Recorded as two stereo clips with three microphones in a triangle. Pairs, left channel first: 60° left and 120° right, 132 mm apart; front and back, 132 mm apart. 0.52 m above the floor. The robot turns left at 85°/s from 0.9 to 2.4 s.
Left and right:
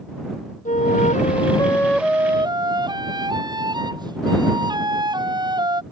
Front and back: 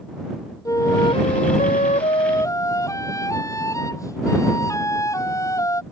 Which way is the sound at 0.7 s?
65° left.